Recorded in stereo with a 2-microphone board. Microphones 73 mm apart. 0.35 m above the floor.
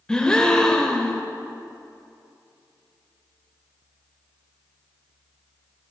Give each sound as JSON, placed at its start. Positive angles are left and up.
{"t": 0.1, "sound": "a gasp", "side_deg": 10, "distance_m": 0.6}